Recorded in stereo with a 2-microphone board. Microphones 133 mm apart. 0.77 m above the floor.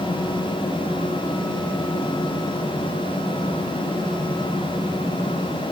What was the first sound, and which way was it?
Only background noise.